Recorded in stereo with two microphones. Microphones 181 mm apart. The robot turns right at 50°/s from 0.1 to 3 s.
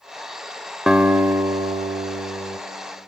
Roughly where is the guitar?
Behind.